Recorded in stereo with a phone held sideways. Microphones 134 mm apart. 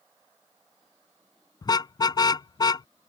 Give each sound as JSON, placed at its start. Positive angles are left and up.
{"t": 1.6, "sound": "a car horn", "side_deg": 30}